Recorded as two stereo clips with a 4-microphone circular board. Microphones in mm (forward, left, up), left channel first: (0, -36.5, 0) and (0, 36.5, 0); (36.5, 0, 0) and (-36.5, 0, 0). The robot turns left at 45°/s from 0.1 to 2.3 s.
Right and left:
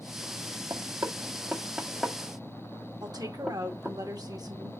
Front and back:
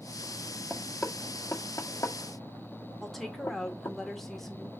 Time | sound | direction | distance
0.7 | knocking | 70° left | 1.3 m
3.0 | a woman speaking | 85° left | 2.0 m